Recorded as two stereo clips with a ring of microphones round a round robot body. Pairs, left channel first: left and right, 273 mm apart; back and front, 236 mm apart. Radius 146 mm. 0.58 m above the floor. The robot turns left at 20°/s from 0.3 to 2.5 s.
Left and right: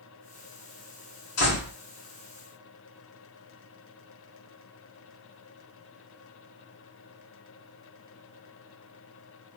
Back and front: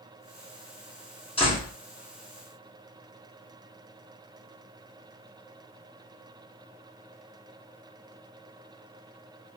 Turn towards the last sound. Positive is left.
turn(degrees=90)